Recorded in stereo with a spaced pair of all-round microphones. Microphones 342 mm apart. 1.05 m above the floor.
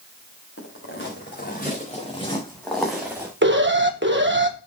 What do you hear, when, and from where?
0.6 s footsteps: 40° left (ahead or behind), 5 m; by 3.3 s 10° right (ahead or behind), 4 m
3.4 s an alarm: 35° right (ahead or behind), 1.3 m